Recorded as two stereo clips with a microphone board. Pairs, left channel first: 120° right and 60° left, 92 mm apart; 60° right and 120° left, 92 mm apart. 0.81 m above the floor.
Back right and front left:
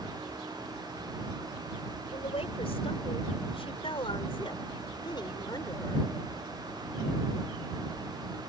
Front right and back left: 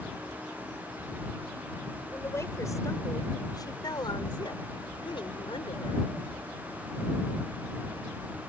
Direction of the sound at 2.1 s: 120° right.